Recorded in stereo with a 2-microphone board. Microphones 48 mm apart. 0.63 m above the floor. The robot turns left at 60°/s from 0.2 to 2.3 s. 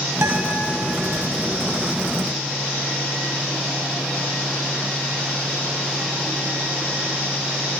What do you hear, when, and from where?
0.2 s a guitar: 75° right (ahead or behind), 1.0 m; by 0.6 s 70° right (ahead or behind), 1.0 m